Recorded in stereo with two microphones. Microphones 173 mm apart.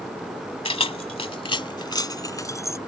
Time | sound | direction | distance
0.7 | keys jangling | 30° left (ahead or behind) | ?